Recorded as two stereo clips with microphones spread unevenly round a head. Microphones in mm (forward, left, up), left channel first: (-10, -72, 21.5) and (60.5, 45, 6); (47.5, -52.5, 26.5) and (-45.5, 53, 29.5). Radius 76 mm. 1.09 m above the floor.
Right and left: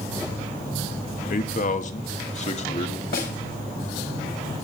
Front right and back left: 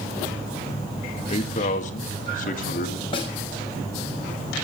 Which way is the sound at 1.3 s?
95° right.